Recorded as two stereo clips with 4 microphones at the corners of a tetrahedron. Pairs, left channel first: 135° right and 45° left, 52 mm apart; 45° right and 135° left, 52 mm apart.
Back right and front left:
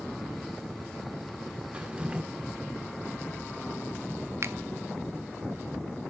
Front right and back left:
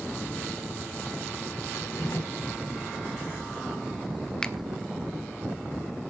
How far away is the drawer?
About 1.1 m.